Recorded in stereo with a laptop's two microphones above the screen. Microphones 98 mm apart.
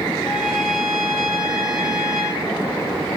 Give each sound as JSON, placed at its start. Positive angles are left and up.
{"t": 0.2, "sound": "a trumpet", "side_deg": 0, "distance_m": 3.0}